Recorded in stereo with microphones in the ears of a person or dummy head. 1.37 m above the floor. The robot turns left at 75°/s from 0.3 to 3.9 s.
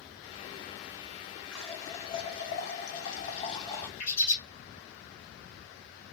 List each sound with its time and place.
1.5 s a running tap: 170° right, 0.6 m; by 3.9 s 10° left, 0.6 m
4.0 s a bird: 60° left (ahead or behind), 1.1 m